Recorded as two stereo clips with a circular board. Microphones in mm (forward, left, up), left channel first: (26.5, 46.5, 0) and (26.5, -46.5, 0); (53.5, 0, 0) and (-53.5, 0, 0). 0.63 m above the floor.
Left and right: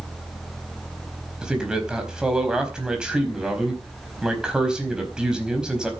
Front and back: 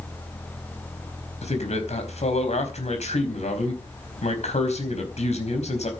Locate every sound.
1.4 s a man speaking: 10° right, 4.5 m